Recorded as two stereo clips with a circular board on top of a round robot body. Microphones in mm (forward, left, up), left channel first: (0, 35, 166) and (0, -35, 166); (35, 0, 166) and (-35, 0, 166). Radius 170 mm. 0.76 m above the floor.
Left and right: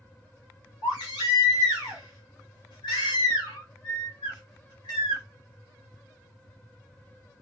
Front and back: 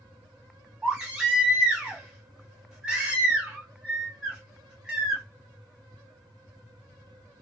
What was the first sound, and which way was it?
A baby crying, 100° left.